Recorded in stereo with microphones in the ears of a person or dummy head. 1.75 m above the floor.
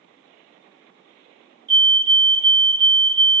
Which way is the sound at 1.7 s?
70° right (ahead or behind).